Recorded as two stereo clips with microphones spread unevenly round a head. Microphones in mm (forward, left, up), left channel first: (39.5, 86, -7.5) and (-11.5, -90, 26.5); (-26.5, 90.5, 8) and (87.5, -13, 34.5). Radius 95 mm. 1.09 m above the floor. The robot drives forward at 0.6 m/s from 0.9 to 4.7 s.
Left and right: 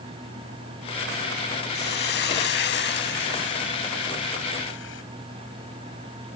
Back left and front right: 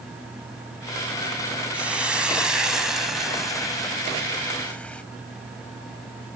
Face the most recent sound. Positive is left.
turn(degrees=55)